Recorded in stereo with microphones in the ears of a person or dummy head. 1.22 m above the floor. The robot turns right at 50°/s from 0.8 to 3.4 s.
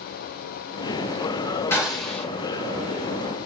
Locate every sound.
1.7 s a gunshot: 10° left (ahead or behind), 4 m; by 2.2 s 40° left (ahead or behind), 4 m